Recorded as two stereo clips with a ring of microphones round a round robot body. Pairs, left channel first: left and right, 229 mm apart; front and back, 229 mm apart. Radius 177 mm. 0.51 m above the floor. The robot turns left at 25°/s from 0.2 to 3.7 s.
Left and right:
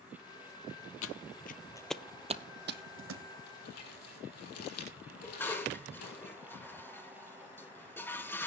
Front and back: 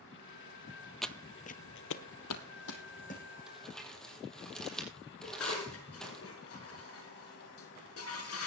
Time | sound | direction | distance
1.0 | footsteps | 90° left | 0.9 m
3.5 | crumpling | 95° left | 5.5 m
5.2 | dishes clattering | 10° left | 5.5 m